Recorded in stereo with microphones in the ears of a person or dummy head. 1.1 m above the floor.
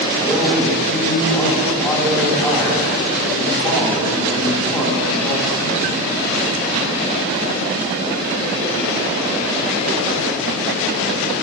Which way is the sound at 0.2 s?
5° left (ahead or behind).